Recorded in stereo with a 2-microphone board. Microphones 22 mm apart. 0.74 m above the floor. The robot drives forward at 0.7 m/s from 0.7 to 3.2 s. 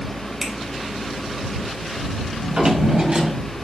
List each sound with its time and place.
0.4 s a finger snap: centre (ahead or behind), 3 m
2.4 s a drawer: 60° right (ahead or behind), 1.8 m; by 3.5 s 45° right (ahead or behind), 2 m